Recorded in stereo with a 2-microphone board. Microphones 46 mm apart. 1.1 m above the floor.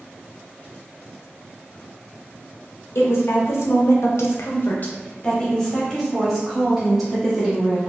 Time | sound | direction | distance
3.0 | a woman speaking | 60° left (ahead or behind) | 1.0 m